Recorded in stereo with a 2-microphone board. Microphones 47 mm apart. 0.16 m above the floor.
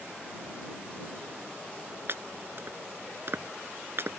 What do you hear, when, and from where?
2.1 s chopping: 55° right (ahead or behind)